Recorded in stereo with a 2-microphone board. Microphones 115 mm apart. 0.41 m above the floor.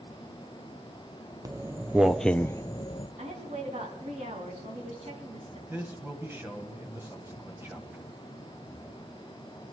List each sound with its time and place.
1.4 s footsteps: 30° right (ahead or behind), 0.9 m; by 3.1 s 50° left (ahead or behind), 0.7 m
3.2 s a woman speaking: 75° right (ahead or behind), 4 m
5.7 s a man speaking: 20° right (ahead or behind), 3 m